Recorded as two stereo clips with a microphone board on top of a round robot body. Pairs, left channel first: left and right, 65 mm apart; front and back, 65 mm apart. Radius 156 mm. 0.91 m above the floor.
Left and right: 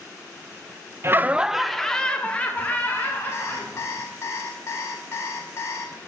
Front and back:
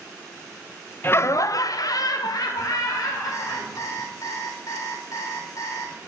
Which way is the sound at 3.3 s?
40° left.